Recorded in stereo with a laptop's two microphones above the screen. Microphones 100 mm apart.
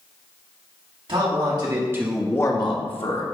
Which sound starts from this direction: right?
A man speaking, at 1.1 s.